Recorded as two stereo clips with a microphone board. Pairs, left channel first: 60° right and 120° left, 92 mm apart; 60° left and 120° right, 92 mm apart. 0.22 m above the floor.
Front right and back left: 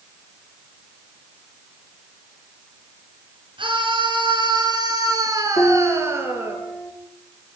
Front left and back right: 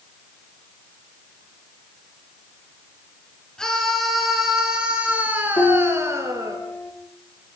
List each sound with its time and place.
3.6 s a scream: 145° left, 4.5 m; by 6.6 s 175° right, 4.5 m
5.6 s a piano: 5° left, 10 m